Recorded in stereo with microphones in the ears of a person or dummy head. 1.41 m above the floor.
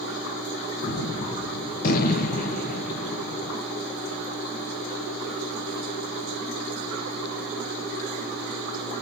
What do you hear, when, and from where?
0.8 s a gunshot: 45° left (ahead or behind), 0.7 m